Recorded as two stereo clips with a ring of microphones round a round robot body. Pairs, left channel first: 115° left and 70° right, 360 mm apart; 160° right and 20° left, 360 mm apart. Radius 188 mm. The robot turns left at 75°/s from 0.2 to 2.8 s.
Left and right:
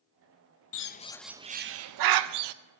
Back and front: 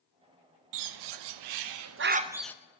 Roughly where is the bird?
Ahead left.